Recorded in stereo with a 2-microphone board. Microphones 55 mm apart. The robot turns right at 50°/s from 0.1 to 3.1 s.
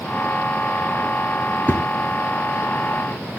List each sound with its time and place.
1.7 s a thud: 35° left (ahead or behind), 2.5 m; by 3.4 s 35° right (ahead or behind), 2.5 m